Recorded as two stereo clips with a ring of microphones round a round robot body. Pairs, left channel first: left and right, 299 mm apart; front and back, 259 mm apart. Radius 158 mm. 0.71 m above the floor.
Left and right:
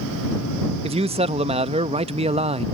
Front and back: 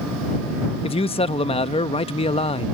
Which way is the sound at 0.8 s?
40° right.